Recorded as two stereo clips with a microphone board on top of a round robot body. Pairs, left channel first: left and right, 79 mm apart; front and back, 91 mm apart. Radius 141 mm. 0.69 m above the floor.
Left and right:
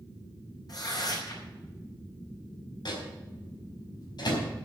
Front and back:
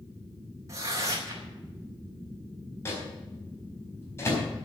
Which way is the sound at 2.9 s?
60° left.